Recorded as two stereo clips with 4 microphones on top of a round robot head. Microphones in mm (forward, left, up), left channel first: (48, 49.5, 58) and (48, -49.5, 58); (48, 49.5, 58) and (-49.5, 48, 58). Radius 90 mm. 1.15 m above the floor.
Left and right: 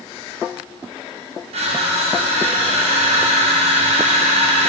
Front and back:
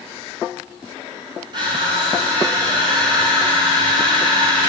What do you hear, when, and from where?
1.5 s crushing: 125° right, 3 m